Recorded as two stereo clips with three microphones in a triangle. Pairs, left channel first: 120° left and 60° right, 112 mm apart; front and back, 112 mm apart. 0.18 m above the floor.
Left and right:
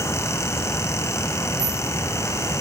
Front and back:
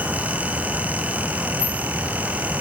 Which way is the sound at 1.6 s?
40° right.